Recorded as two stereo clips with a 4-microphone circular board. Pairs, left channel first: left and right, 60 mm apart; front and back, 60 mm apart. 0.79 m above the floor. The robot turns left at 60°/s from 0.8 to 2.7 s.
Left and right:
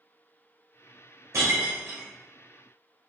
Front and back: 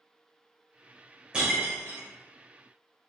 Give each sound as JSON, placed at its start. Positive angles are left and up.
{"t": 1.3, "sound": "breaking glass", "azimuth_deg": -110, "distance_m": 1.5}